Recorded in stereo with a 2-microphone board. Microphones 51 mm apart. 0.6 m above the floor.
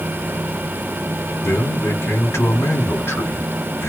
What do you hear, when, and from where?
1.4 s a man speaking: 60° left (ahead or behind), 1.5 m